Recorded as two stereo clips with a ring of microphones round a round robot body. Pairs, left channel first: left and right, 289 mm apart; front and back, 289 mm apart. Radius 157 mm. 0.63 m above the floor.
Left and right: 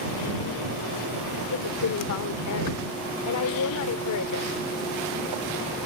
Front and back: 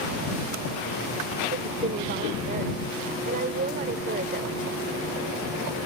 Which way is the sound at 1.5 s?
115° left.